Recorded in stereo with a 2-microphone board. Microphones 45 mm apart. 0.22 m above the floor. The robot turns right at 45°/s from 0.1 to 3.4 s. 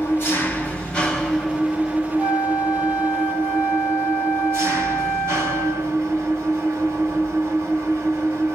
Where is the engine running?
120° left, 1.6 m; by 8.6 s 90° right, 1.6 m.